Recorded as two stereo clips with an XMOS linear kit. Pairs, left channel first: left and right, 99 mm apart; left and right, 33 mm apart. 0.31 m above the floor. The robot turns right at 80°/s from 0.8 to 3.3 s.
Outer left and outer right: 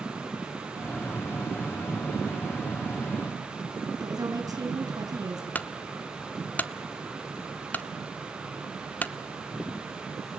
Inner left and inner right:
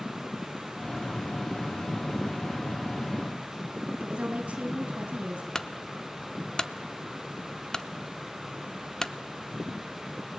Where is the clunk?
15° left (ahead or behind), 0.7 m.